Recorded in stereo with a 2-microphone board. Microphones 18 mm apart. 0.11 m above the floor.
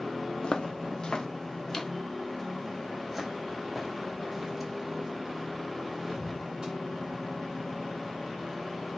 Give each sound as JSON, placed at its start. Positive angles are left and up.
{"t": 0.4, "sound": "footsteps", "side_deg": 65, "distance_m": 1.4}